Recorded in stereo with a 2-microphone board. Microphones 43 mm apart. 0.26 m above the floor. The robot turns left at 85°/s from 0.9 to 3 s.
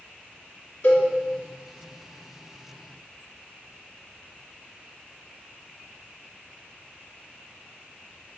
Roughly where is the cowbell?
Left.